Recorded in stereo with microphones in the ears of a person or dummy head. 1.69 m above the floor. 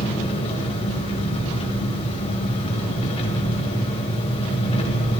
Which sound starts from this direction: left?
An engine running, at 0.0 s.